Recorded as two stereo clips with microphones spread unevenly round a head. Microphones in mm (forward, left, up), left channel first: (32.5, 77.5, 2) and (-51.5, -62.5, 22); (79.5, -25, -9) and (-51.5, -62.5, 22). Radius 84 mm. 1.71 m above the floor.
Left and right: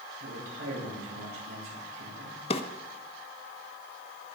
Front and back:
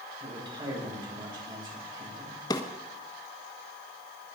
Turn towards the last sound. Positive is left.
turn(degrees=80)